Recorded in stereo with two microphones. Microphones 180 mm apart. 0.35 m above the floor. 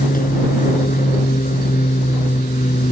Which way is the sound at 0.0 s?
50° left (ahead or behind).